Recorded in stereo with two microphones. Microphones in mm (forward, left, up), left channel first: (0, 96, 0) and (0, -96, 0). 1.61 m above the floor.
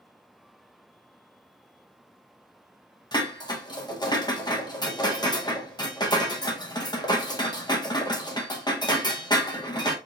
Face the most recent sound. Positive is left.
turn(degrees=20)  # may be behind; listen again after turning